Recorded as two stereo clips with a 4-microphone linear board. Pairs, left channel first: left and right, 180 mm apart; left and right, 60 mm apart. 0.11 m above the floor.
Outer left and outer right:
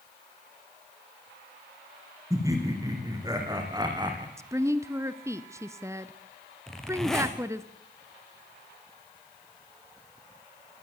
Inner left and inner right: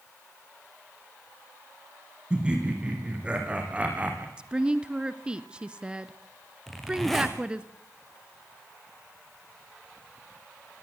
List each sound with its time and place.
2.3 s laughter: 20° right (ahead or behind), 6.5 m; by 4.3 s 25° right (ahead or behind), 6 m
4.4 s a woman speaking: 15° right (ahead or behind), 1.1 m
6.7 s a zipper: centre (ahead or behind), 4 m